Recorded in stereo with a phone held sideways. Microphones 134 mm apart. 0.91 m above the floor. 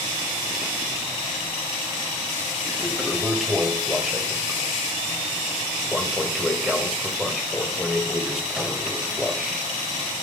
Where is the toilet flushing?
Centre (ahead or behind), 1.9 m.